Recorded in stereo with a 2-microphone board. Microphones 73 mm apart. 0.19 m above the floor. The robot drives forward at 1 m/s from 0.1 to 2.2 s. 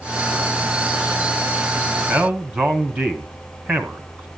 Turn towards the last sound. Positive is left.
turn(degrees=-15)  # may be behind; listen again after turning